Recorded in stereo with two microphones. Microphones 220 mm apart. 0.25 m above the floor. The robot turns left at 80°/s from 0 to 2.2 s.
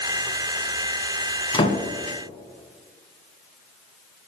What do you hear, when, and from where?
1.5 s a door slam: 20° left (ahead or behind), 2 m; by 1.8 s 40° left (ahead or behind), 2 m